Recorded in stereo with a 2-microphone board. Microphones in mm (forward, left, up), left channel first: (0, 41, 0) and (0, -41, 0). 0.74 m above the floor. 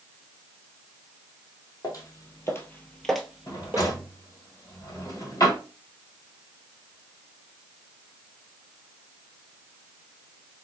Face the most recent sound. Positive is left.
turn(degrees=50)  # may be behind; listen again after turning